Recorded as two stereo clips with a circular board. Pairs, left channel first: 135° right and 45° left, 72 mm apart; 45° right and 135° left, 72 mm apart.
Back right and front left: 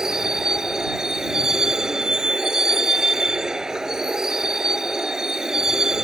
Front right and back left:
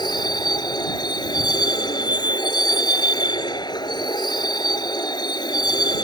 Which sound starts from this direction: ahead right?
A vehicle, at 0.0 s.